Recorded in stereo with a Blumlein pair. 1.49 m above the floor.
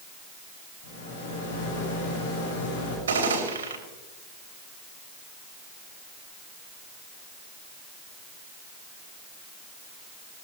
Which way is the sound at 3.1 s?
65° right.